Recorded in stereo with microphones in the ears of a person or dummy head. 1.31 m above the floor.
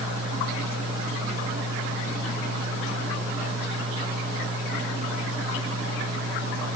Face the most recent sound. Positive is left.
No sound to turn to.